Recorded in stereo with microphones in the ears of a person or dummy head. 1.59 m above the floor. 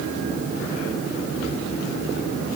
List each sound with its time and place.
Only background noise.